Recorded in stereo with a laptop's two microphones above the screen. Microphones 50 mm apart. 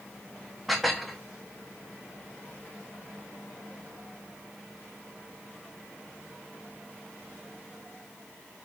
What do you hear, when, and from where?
0.7 s dishes clattering: centre (ahead or behind), 0.9 m